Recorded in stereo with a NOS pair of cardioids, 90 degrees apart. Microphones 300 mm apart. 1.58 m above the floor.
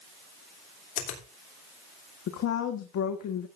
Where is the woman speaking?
70° left, 1.5 m.